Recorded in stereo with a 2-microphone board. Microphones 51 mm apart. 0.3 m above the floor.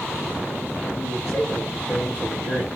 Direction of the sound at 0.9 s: 55° left (ahead or behind).